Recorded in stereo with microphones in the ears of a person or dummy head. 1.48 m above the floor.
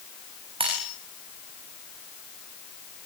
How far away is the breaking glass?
About 4.5 m.